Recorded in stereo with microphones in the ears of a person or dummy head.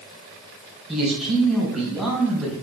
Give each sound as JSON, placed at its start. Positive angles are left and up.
{"t": 0.9, "sound": "a man speaking", "side_deg": -5, "distance_m": 3.0}